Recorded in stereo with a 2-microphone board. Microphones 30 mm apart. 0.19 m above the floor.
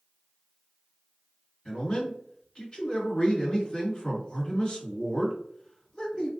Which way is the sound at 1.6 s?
30° left (ahead or behind).